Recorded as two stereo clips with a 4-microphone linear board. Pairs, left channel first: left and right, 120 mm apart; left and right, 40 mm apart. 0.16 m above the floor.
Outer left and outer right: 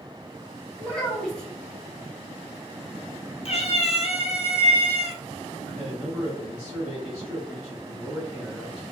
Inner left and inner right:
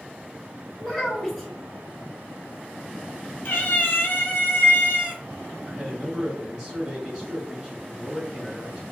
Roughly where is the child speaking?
Centre.